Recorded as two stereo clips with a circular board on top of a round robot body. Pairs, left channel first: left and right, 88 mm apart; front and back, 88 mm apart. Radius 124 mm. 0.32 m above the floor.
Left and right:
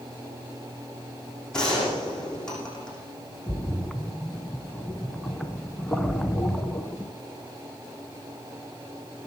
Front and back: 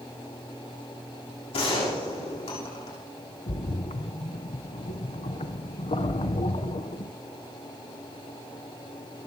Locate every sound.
1.5 s a gunshot: 10° left, 7.5 m
3.5 s a splash: 5° left, 1.0 m